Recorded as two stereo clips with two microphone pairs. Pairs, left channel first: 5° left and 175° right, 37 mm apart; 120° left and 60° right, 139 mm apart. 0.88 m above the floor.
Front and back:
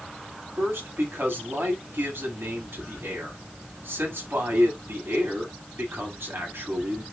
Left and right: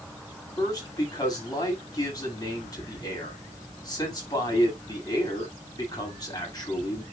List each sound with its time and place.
0.6 s a man speaking: 175° right, 7.5 m